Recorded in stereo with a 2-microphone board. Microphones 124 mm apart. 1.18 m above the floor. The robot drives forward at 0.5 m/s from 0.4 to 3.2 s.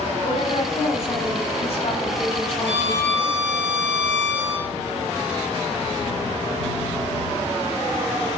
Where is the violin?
60° right (ahead or behind), 3.5 m.